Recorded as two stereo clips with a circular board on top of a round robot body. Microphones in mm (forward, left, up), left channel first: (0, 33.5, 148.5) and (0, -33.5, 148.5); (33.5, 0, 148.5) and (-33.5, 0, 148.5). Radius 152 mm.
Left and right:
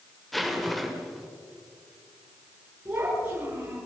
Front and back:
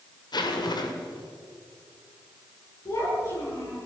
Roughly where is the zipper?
Ahead.